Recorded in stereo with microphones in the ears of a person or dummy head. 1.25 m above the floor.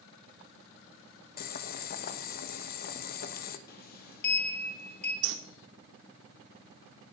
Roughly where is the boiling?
Left.